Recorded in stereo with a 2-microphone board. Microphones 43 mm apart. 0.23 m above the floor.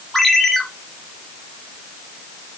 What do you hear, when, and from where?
0.1 s a ringtone: 5° left (ahead or behind), 3 m